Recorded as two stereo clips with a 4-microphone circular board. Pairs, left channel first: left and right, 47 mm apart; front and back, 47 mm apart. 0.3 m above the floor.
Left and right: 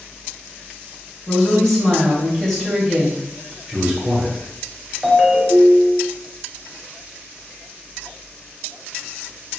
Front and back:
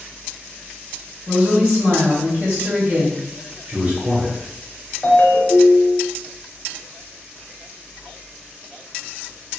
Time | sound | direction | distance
1.3 | a woman speaking | 170° left | 1.6 m
3.7 | a man speaking | 165° right | 0.9 m
5.0 | a ringtone | 5° right | 0.8 m